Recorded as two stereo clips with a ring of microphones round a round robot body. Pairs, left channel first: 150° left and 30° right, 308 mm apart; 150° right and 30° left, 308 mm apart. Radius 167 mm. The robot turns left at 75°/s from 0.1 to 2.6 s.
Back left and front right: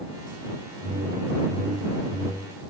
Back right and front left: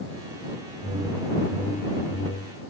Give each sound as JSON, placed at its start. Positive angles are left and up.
{"t": 0.8, "sound": "a whoosh", "azimuth_deg": -15}